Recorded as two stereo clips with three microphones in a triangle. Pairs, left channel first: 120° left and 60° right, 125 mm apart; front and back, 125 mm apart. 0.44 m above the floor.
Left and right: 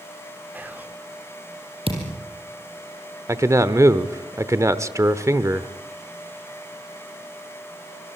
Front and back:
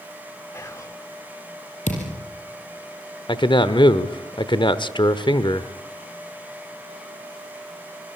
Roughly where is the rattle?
I don't hear a rattle.